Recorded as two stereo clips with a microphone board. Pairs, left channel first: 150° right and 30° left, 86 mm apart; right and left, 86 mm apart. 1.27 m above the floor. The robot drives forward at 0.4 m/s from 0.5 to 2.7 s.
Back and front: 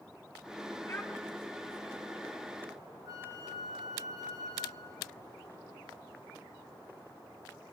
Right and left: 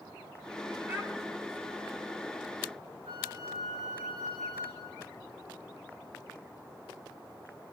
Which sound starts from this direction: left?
A flute, at 3.0 s.